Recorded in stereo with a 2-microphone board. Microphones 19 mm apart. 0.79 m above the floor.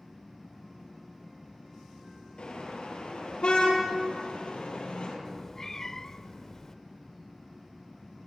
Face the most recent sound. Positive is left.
turn(degrees=20)  # may be behind; listen again after turning